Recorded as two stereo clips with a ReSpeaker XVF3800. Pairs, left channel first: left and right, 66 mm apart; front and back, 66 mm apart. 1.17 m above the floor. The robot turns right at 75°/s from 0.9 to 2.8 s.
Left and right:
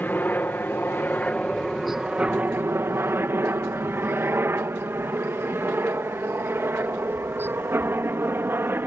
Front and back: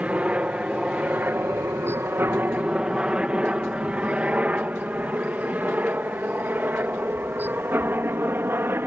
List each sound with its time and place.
0.0 s a helicopter: 125° left; by 8.9 s 135° right